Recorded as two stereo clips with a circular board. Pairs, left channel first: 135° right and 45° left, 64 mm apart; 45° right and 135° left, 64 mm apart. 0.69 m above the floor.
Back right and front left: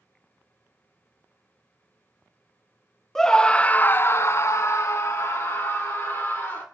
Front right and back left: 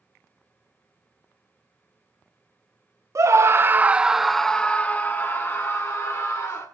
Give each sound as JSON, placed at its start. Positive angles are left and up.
{"t": 3.1, "sound": "a scream", "azimuth_deg": 140, "distance_m": 0.8}